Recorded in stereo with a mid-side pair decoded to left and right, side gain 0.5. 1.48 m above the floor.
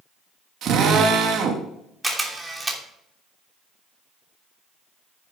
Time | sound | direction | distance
0.6 | a drill | 60° right | 2.5 m
2.0 | a camera shutter | 15° right | 3 m